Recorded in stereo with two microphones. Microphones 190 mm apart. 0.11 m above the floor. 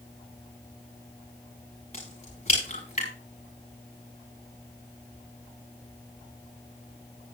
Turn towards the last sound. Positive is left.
turn(degrees=35)  # may be behind; listen again after turning